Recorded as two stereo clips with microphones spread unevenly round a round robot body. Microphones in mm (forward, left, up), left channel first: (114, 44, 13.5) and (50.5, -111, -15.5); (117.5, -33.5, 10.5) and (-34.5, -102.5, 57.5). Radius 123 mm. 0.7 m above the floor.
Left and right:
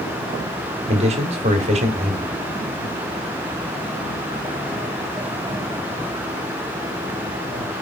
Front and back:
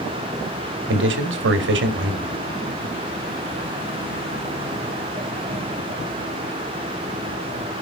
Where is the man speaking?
160° right, 1.8 m.